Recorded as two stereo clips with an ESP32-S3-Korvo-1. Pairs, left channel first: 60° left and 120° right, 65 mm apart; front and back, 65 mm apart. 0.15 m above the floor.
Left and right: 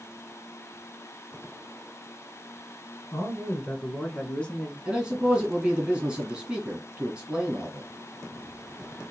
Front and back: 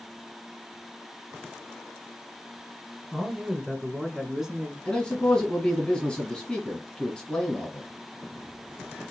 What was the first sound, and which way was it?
A man speaking, 75° left.